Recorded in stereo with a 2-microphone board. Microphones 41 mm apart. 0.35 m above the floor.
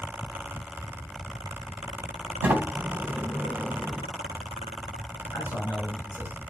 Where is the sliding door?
40° right (ahead or behind), 2.5 m.